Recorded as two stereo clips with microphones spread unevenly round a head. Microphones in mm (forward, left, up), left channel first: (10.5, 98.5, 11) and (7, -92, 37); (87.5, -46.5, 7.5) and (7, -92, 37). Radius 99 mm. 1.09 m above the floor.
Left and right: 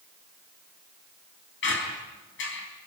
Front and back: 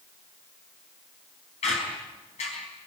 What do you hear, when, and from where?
1.6 s a squeak: 60° left, 4.5 m